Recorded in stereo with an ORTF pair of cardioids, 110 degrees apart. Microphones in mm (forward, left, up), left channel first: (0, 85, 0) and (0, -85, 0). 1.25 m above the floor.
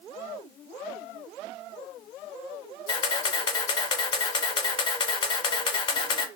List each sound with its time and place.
2.9 s a camera shutter: 30° left, 0.6 m